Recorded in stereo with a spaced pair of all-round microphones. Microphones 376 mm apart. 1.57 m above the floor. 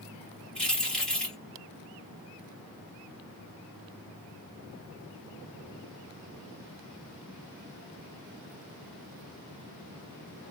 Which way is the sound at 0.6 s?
Centre (ahead or behind).